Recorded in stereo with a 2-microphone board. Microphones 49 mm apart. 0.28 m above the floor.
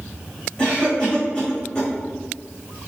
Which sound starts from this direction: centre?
A cough, at 0.6 s.